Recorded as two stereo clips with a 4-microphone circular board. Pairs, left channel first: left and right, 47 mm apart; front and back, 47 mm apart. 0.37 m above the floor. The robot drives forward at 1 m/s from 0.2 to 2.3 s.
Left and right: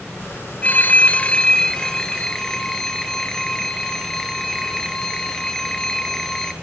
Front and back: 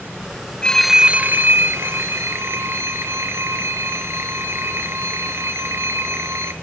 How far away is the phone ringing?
About 0.6 m.